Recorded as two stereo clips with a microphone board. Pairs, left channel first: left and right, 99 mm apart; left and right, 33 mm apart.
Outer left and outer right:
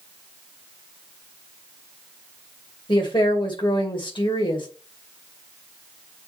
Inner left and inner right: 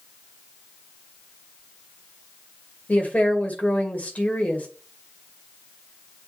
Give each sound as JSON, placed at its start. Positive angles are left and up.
{"t": 2.9, "sound": "a woman speaking", "side_deg": 55, "distance_m": 2.0}